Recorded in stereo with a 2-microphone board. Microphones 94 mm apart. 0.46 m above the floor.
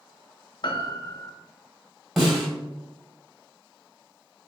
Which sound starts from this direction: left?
A piano, at 0.6 s.